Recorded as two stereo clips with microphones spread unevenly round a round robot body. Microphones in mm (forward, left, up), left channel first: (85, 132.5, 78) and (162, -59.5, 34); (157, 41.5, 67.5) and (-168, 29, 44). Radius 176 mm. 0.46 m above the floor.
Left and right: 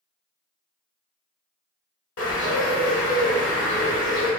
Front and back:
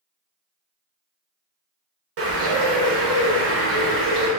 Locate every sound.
2.2 s a bird: 145° left, 1.2 m